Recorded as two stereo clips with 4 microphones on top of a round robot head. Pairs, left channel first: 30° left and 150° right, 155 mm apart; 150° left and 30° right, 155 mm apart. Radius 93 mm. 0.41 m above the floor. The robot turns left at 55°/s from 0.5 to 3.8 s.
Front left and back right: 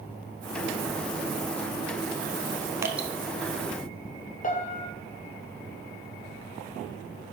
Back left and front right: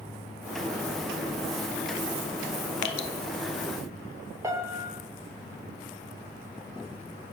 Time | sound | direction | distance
2.8 | dripping | 140° left | 0.8 m
4.4 | a piano | 35° left | 1.4 m